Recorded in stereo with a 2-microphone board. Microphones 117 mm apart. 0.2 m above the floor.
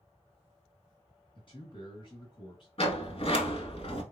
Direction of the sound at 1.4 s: 45° left (ahead or behind).